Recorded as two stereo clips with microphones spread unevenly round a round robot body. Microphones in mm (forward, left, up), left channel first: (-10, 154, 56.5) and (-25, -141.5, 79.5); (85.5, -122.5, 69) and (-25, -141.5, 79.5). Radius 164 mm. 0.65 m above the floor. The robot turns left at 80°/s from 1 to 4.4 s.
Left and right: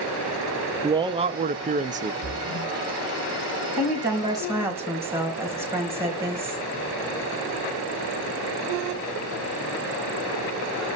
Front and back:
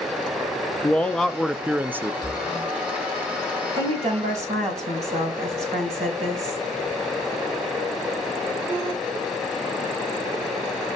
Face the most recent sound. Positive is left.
turn(degrees=-175)